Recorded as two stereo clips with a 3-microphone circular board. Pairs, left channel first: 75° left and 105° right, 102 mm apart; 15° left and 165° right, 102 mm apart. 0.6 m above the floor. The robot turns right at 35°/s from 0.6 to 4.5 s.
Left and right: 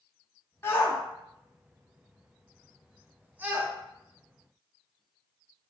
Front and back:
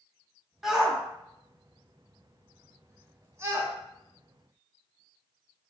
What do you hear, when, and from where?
0.6 s a shout: 110° left, 0.7 m; by 3.7 s 140° right, 0.7 m